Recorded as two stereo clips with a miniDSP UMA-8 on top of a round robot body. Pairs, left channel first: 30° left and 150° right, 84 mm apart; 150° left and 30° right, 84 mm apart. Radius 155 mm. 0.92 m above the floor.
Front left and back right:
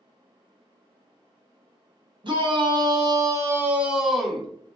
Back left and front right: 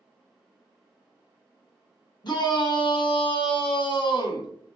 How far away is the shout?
About 1.1 m.